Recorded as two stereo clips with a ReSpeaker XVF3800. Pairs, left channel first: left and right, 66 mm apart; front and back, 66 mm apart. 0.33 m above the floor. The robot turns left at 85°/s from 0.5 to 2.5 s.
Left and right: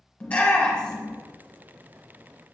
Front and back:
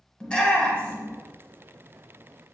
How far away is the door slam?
I don't hear a door slam.